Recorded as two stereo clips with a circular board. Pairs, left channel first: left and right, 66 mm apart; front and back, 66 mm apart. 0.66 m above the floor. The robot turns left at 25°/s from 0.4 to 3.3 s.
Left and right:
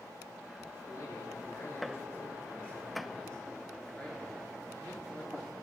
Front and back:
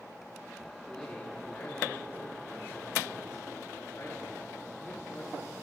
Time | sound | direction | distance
0.9 | a man speaking | 80° left | 1.8 m